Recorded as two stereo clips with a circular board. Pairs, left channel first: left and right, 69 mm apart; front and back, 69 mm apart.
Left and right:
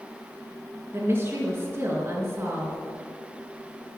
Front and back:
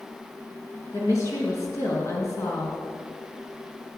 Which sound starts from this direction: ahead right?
A woman speaking, at 0.9 s.